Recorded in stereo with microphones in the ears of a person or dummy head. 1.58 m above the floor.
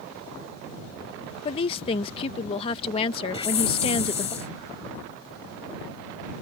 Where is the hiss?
30° left (ahead or behind).